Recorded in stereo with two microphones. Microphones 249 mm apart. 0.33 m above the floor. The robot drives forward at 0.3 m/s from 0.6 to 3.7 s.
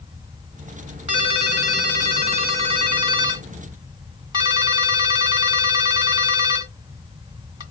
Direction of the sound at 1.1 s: 30° right (ahead or behind).